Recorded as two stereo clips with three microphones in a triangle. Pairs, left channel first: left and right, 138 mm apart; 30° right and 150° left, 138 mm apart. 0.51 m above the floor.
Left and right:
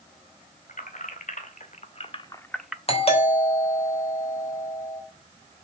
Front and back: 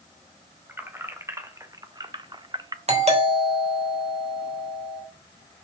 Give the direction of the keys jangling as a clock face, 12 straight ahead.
9 o'clock.